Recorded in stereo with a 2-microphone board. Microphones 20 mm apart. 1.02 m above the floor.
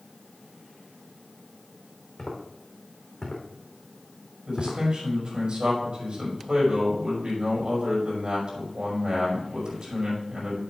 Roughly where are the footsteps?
Left.